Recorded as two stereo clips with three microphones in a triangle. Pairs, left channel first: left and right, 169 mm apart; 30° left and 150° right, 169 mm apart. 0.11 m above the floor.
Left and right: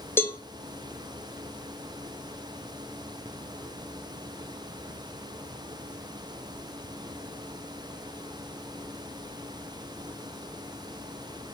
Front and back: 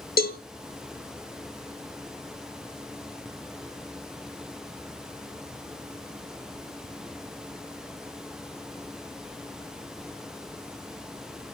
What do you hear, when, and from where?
0.2 s a cowbell: 15° left, 0.7 m